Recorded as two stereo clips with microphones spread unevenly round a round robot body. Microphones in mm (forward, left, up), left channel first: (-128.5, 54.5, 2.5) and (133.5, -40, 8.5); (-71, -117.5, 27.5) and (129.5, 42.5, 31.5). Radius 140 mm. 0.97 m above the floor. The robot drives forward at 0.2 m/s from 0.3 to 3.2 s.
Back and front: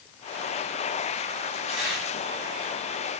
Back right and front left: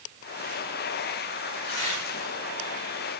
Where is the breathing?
I don't hear breathing.